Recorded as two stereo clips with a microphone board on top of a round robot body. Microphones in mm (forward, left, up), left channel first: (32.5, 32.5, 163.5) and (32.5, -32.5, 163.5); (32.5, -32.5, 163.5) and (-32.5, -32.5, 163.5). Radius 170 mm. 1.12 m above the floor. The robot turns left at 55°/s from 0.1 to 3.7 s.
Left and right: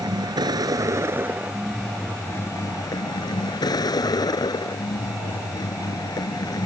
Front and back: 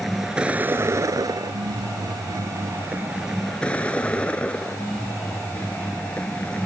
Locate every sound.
0.0 s a vehicle: 90° right; by 6.7 s 70° left